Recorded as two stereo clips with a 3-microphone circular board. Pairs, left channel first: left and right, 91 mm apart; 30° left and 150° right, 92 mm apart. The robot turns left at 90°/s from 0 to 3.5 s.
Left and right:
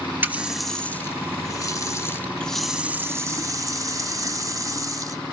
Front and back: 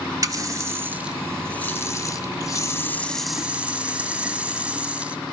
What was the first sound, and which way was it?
A running tap, 145° right.